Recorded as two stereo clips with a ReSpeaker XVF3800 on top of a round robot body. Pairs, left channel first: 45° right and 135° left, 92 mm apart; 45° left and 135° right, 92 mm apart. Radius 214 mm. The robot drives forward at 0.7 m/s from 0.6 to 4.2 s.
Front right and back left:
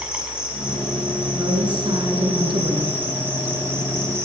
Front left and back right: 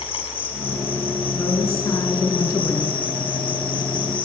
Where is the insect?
55° left, 7 m; by 4.3 s 75° left, 6 m.